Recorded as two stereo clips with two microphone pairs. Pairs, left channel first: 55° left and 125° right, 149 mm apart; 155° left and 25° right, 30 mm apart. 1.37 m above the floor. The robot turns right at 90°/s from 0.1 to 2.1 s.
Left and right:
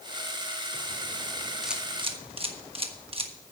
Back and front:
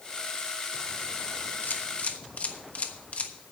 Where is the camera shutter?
145° left, 1.2 m; by 3.3 s 170° right, 1.2 m.